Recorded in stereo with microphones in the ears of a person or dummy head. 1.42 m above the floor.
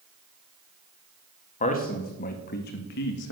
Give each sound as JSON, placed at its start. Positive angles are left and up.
{"t": 1.6, "sound": "a man speaking", "side_deg": 35, "distance_m": 2.0}